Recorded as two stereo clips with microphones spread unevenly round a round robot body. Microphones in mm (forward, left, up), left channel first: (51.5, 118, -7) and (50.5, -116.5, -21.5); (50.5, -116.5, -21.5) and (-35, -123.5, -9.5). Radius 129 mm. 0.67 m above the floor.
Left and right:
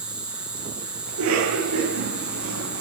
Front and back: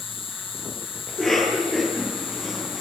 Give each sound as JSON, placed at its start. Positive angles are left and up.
{"t": 0.0, "sound": "an insect", "azimuth_deg": -5, "distance_m": 9.0}
{"t": 1.1, "sound": "a cough", "azimuth_deg": -70, "distance_m": 9.0}